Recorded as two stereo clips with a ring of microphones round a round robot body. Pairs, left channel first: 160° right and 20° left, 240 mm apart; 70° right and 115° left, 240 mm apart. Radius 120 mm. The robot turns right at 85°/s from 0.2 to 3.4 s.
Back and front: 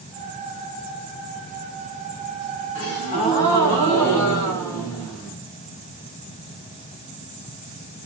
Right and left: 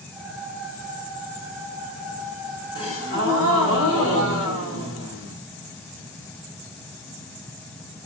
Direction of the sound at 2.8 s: 135° right.